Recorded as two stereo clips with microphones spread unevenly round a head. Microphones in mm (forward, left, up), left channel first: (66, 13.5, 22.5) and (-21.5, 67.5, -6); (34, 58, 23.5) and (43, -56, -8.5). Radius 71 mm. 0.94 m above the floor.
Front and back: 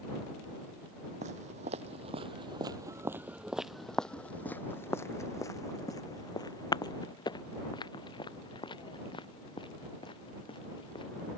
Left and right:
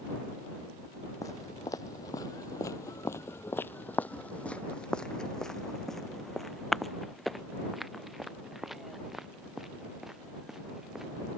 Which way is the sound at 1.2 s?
145° left.